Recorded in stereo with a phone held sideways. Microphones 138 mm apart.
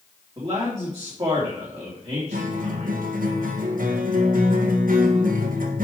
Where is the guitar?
85° right, 1.4 m.